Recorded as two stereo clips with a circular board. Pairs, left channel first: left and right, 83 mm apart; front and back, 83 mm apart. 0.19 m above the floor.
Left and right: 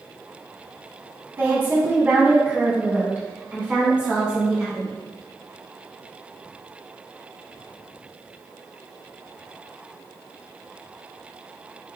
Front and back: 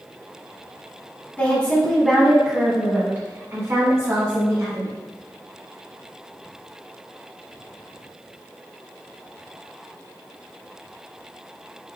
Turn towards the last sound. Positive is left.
turn(degrees=-165)